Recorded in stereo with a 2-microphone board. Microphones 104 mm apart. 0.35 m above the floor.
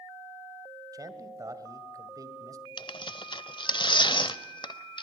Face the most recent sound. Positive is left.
turn(degrees=50)  # may be behind; listen again after turning